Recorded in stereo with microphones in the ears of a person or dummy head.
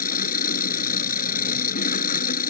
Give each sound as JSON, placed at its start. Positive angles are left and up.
{"t": 0.0, "sound": "an engine running", "side_deg": 40}